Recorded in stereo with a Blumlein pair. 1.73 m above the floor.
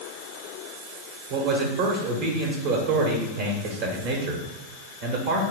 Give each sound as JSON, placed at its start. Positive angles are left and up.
{"t": 1.3, "sound": "a man speaking", "azimuth_deg": -45, "distance_m": 1.0}